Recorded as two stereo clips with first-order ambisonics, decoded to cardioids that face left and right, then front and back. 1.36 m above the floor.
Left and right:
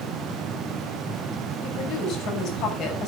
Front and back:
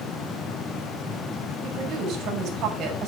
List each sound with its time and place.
1.6 s a woman speaking: 130° left, 6 m